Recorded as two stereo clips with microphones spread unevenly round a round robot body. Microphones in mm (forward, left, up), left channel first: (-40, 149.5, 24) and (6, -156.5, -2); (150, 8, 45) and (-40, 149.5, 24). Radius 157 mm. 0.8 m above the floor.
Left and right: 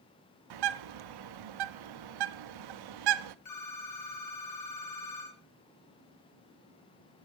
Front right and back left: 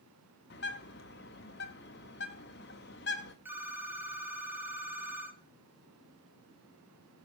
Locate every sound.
0.5 s a bird: 95° right, 0.6 m
3.5 s a phone ringing: 60° left, 1.8 m